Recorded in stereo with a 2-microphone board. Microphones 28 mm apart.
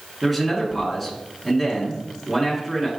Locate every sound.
0.2 s a man speaking: centre (ahead or behind), 1.8 m